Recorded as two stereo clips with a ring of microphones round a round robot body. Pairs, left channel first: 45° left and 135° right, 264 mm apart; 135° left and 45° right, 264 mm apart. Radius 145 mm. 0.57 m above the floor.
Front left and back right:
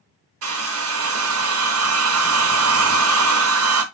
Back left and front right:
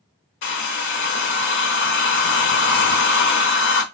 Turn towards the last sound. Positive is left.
turn(degrees=-175)